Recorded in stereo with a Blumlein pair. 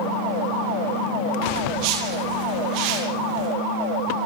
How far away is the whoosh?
About 9 m.